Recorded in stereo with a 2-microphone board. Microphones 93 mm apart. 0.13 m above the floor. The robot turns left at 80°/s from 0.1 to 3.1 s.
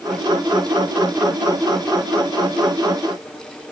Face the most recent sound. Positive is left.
No sound to turn to.